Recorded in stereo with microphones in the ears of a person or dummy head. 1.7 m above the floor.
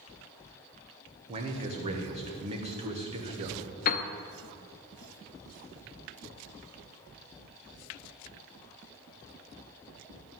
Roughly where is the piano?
Left.